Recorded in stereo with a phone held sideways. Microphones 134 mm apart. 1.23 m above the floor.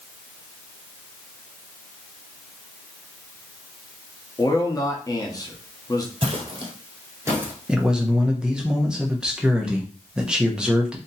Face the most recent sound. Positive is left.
turn(degrees=-5)  # may be behind; listen again after turning